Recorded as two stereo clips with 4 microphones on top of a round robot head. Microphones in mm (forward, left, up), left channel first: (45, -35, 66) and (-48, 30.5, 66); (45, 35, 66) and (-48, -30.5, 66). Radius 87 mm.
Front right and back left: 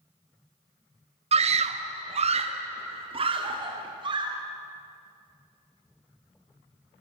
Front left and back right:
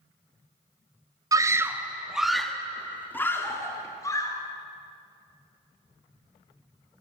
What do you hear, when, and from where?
1.3 s a scream: 160° left, 1.3 m; by 4.3 s 95° left, 2.5 m